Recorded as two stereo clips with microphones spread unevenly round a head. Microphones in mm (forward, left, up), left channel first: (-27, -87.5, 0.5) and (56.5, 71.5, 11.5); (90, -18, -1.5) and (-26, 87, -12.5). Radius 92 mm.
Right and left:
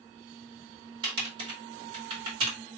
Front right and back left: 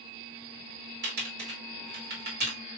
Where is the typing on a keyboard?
130° left, 2.5 m.